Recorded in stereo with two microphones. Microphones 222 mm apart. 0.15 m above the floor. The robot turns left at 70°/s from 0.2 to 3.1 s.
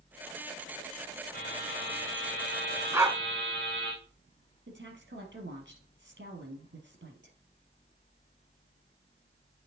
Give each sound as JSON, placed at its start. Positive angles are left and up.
{"t": 1.3, "sound": "a buzzer", "azimuth_deg": 130, "distance_m": 3.0}
{"t": 2.9, "sound": "a dog barking", "side_deg": -10, "distance_m": 0.6}
{"t": 4.7, "sound": "a woman speaking", "side_deg": -55, "distance_m": 2.5}